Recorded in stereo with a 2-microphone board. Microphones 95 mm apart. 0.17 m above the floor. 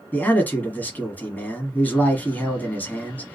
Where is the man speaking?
20° left (ahead or behind), 1.0 m.